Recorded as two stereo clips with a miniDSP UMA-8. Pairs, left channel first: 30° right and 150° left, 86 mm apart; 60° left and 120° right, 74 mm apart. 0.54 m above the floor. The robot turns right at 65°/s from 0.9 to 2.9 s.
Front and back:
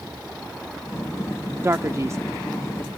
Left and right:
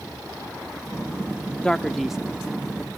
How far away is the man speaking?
About 0.7 m.